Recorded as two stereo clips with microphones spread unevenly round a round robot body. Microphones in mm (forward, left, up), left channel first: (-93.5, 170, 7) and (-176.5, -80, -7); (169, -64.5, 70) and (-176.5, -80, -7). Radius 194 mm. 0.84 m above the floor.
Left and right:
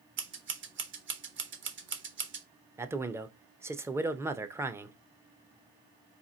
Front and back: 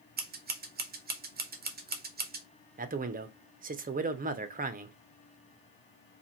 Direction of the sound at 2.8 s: Straight behind.